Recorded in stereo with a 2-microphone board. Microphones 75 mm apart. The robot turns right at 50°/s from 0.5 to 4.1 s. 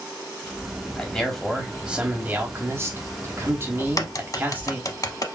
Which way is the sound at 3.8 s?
45° left (ahead or behind).